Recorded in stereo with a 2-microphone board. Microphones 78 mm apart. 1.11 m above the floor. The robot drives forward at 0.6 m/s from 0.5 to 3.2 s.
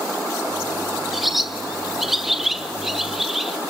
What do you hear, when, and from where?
1.1 s a bird: centre (ahead or behind), 0.9 m